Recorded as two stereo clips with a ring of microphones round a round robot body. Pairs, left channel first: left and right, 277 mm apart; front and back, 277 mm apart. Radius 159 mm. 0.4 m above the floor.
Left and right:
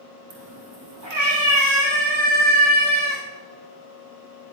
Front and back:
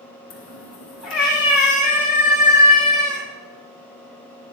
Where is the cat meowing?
40° right, 4 m; by 3.2 s 75° right, 7 m.